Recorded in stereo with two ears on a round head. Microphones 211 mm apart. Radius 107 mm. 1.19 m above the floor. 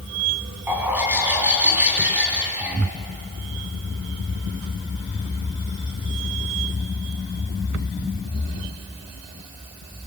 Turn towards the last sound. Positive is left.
turn(degrees=-10)  # may be behind; listen again after turning